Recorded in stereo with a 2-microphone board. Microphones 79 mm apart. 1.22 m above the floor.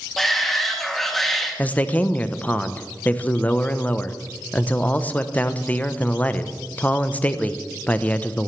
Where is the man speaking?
20° left (ahead or behind), 0.7 m.